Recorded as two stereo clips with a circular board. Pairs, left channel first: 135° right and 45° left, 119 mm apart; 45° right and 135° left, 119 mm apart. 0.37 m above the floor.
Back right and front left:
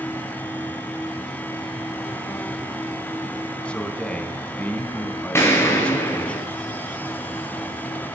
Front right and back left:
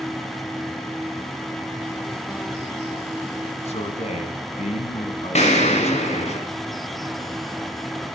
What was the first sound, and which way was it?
A man speaking, 55° right.